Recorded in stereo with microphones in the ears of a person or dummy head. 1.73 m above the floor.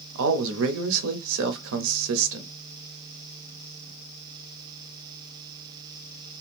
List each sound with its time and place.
0.1 s a man speaking: 65° right (ahead or behind), 0.8 m